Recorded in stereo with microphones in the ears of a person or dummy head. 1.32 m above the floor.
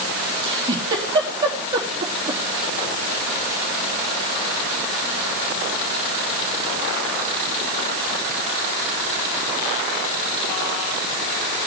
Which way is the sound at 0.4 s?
20° right (ahead or behind).